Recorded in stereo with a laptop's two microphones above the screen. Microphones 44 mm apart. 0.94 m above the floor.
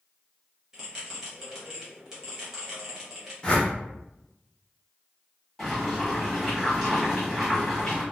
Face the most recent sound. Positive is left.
turn(degrees=5)  # may be behind; listen again after turning